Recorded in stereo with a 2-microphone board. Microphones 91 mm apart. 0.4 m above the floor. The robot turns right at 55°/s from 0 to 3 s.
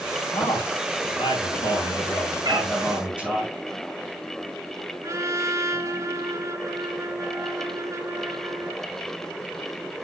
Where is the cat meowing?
50° right (ahead or behind), 2 m; by 2.7 s 65° right (ahead or behind), 2 m.